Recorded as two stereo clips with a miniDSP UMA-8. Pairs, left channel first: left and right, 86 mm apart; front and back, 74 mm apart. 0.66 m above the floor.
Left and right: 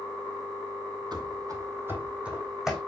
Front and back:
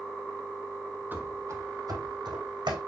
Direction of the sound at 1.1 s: 115° right.